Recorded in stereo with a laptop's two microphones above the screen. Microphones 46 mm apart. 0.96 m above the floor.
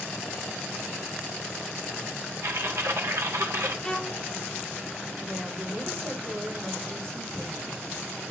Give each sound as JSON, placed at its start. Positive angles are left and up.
{"t": 2.4, "sound": "typing on a keyboard", "side_deg": -70, "distance_m": 2.0}
{"t": 3.8, "sound": "a violin", "side_deg": 10, "distance_m": 1.8}
{"t": 5.2, "sound": "a woman speaking", "side_deg": -65, "distance_m": 6.0}